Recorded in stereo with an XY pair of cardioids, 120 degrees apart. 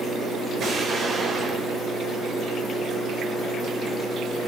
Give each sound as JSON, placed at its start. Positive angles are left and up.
{"t": 0.6, "sound": "an explosion", "azimuth_deg": -50, "distance_m": 3.5}